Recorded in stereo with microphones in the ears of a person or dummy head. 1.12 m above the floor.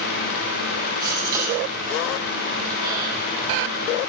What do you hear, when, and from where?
1.0 s a gasp: 25° right (ahead or behind), 6.5 m